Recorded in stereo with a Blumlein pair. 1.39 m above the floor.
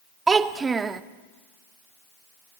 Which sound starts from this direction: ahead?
A child speaking, at 0.3 s.